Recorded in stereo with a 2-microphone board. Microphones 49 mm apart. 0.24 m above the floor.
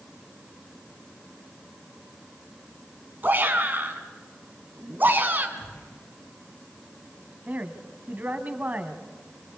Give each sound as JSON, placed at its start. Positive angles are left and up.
{"t": 3.2, "sound": "a shout", "side_deg": -35, "distance_m": 2.5}
{"t": 5.6, "sound": "a gunshot", "side_deg": 75, "distance_m": 8.5}
{"t": 7.5, "sound": "a woman speaking", "side_deg": -30, "distance_m": 1.8}